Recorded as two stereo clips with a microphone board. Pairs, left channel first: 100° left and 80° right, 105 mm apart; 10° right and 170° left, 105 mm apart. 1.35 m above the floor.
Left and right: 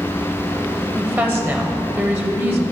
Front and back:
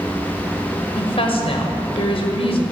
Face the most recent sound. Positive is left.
turn(degrees=-15)